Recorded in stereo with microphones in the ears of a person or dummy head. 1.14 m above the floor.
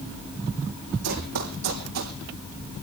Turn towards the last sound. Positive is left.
turn(degrees=-75)  # may be behind; listen again after turning